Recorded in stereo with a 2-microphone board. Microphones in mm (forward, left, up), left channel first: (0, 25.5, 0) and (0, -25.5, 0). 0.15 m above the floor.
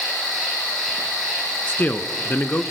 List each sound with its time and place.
0.0 s an insect: 5° left (ahead or behind), 5 m
1.7 s a man speaking: 40° left (ahead or behind), 1.3 m